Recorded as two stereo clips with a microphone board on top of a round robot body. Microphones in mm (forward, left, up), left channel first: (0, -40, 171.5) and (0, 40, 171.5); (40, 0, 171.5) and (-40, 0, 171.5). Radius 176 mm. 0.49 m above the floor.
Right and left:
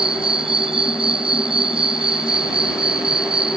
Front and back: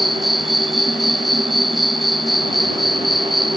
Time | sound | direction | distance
0.0 | an insect | 90° left | ?